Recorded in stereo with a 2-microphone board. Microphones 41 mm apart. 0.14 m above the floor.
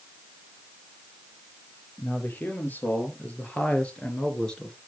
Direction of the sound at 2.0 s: 50° left (ahead or behind).